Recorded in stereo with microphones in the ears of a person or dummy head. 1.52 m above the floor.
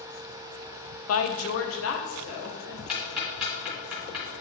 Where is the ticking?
Centre (ahead or behind), 2 m.